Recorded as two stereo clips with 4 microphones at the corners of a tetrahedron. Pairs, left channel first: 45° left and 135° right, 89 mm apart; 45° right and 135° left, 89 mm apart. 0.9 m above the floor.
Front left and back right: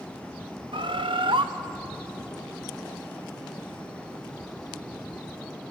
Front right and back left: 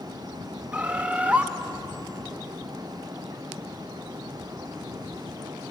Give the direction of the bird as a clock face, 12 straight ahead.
5 o'clock.